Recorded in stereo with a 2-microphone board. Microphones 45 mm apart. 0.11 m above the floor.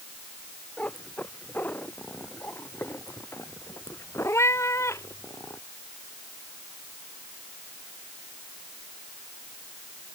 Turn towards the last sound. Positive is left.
turn(degrees=85)